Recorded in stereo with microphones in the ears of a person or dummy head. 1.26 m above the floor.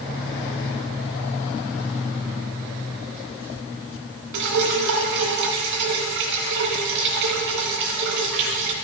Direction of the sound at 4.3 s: 60° right (ahead or behind).